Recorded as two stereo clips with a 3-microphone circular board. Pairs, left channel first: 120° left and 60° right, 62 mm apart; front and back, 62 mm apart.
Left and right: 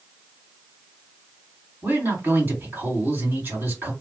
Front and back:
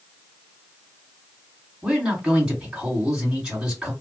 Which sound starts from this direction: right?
A man speaking, at 1.8 s.